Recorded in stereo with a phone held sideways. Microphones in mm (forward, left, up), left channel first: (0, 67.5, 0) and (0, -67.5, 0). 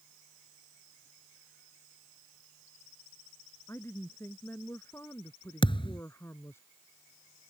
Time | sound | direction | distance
3.7 | a woman speaking | 20° left (ahead or behind) | ?
5.6 | a thud | 40° left (ahead or behind) | ?